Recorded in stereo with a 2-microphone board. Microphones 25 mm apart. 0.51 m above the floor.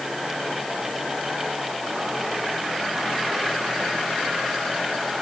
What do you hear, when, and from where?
Only background noise.